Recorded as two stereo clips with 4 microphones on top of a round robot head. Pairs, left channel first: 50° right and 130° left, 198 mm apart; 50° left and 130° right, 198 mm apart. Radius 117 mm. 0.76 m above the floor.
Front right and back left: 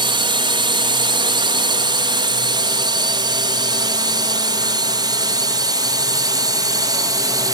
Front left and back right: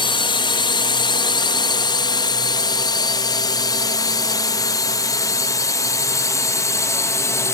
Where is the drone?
90° left; by 7.5 s 100° left.